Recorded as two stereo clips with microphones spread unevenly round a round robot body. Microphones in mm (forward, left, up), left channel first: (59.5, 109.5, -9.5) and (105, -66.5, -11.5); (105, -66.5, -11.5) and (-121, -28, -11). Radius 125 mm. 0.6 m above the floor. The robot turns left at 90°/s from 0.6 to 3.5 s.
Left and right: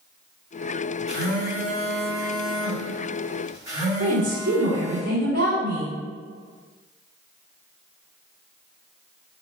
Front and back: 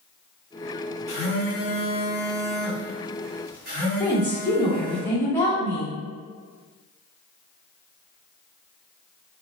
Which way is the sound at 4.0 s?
90° right.